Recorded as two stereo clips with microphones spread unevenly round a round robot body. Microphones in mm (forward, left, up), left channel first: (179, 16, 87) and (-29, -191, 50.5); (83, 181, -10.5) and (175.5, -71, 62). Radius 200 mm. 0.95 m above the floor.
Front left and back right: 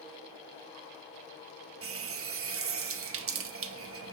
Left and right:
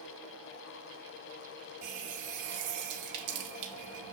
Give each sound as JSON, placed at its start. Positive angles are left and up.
{"t": 1.8, "sound": "a running tap", "azimuth_deg": -90, "distance_m": 0.8}